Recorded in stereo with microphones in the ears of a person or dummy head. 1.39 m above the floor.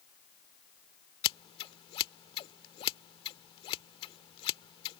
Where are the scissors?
30° left (ahead or behind).